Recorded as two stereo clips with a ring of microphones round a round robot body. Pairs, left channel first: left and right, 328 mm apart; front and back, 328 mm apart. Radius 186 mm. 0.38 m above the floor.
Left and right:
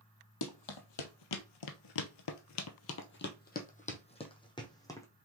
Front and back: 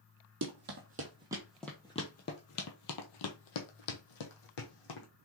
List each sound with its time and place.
0.4 s running footsteps: 120° left, 1.1 m; by 5.1 s 10° left, 1.7 m